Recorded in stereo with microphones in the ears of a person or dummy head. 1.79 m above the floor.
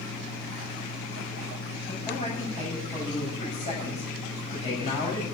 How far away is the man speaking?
About 9 m.